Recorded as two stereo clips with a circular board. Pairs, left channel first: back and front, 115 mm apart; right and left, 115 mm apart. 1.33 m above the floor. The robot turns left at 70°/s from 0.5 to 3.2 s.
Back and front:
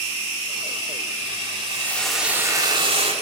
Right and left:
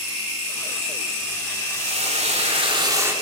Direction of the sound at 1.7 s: 120° left.